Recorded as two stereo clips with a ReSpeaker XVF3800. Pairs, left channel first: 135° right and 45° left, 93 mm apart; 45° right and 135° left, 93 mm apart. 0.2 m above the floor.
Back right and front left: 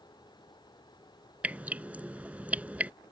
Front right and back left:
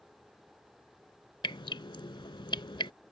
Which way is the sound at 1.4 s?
30° right.